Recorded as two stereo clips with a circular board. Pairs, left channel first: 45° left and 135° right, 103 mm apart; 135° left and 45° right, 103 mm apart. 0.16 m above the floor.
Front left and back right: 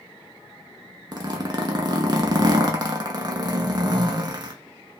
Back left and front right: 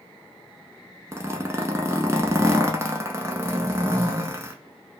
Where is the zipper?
100° right, 0.5 m.